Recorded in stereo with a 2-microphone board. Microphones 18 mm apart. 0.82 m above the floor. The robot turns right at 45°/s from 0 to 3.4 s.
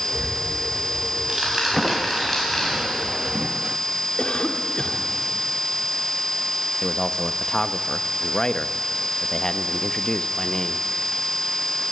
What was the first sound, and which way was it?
Ticking, 80° right.